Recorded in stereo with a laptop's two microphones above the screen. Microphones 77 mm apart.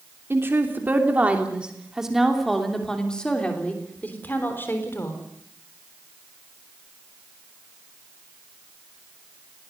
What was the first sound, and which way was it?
A woman speaking, 30° right (ahead or behind).